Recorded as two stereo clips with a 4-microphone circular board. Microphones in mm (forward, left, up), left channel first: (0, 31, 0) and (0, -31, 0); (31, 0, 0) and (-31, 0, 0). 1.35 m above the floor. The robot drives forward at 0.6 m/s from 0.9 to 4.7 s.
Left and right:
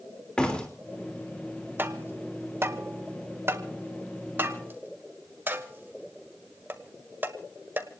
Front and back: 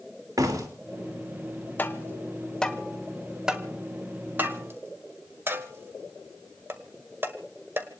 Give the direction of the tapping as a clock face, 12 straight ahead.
2 o'clock.